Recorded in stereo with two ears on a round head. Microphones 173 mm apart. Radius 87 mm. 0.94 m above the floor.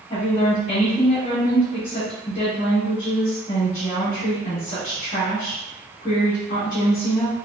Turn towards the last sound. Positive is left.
turn(degrees=35)  # may be behind; listen again after turning